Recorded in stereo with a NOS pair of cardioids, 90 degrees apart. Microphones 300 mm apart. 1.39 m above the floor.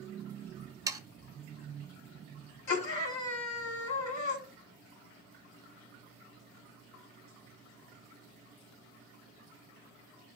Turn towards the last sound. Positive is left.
turn(degrees=70)